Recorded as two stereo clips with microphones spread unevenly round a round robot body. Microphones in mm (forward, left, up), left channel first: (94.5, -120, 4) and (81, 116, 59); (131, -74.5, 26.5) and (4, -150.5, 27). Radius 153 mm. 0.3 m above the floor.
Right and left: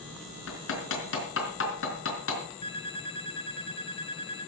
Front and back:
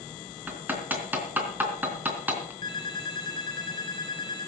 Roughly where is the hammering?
Right.